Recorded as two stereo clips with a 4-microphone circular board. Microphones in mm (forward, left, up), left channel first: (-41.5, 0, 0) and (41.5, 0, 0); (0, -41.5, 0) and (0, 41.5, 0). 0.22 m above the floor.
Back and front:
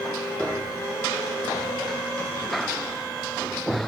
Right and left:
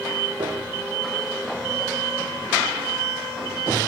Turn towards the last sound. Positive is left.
turn(degrees=100)